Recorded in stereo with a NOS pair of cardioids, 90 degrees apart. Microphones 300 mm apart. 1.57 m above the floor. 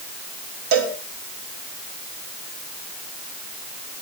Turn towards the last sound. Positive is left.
turn(degrees=-70)